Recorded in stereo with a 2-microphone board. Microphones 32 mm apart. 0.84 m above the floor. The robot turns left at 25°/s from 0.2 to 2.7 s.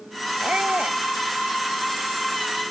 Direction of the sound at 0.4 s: 45° right (ahead or behind).